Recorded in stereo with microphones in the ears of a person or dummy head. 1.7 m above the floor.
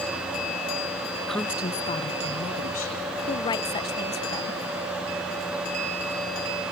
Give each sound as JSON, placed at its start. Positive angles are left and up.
{"t": 1.3, "sound": "a woman speaking", "side_deg": -5, "distance_m": 0.7}
{"t": 3.3, "sound": "a woman speaking", "side_deg": 20, "distance_m": 1.0}